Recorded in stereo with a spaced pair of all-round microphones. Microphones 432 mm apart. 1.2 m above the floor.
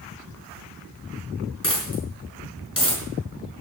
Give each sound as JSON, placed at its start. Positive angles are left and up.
{"t": 1.6, "sound": "a dropped coin", "side_deg": 50, "distance_m": 5.0}